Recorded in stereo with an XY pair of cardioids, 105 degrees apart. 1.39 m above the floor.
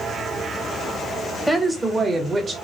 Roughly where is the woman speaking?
Ahead.